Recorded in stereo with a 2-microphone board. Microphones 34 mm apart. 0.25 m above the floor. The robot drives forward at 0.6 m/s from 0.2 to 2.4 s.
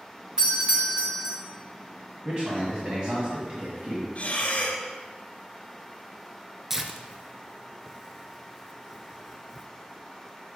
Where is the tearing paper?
15° right (ahead or behind), 0.5 m.